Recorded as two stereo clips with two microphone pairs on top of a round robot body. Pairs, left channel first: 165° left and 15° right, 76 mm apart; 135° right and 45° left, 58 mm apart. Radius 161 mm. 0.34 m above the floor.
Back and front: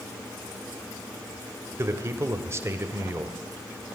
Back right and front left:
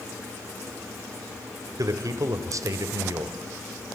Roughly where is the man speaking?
Ahead left.